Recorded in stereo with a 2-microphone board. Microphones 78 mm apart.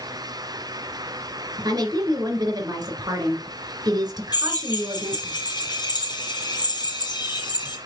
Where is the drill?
65° left (ahead or behind), 3 m.